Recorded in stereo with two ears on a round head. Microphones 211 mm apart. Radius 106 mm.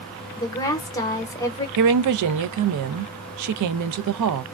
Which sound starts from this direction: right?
A woman speaking, at 1.8 s.